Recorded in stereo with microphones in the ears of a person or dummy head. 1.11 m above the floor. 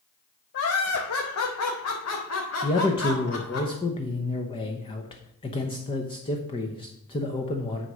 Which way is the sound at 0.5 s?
55° left (ahead or behind).